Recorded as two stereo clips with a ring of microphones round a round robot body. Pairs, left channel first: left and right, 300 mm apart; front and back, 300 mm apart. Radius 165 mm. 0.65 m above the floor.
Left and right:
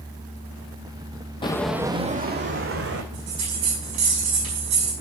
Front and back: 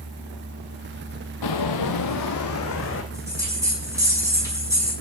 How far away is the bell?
About 6 m.